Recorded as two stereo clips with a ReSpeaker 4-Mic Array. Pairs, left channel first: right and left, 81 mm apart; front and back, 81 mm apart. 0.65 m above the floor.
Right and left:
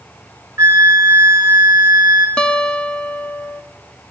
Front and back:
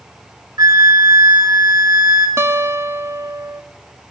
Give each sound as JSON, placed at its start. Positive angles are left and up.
{"t": 0.6, "sound": "a flute", "azimuth_deg": 150, "distance_m": 2.5}
{"t": 2.4, "sound": "a guitar", "azimuth_deg": -160, "distance_m": 1.1}